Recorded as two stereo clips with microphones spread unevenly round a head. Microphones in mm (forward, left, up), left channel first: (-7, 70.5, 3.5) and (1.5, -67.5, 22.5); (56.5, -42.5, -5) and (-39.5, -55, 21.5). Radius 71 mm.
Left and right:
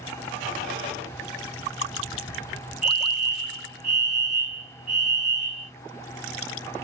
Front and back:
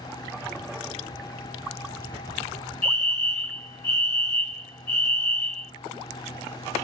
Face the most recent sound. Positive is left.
turn(degrees=-50)